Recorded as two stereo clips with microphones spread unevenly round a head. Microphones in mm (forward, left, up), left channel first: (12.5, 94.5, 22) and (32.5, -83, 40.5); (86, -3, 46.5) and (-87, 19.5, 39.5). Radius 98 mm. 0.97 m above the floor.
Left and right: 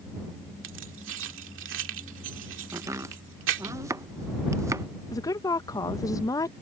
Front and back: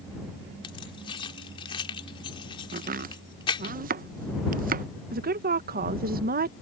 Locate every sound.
0.6 s keys jangling: 70° right
2.7 s chopping: 160° right
5.1 s a woman speaking: 160° left